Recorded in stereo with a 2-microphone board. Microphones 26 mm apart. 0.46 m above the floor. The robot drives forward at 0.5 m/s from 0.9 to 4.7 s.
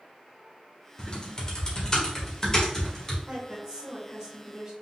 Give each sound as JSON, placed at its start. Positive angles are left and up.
{"t": 1.0, "sound": "typing on a keyboard", "side_deg": 35, "distance_m": 1.3}
{"t": 3.3, "sound": "a woman speaking", "side_deg": -5, "distance_m": 2.0}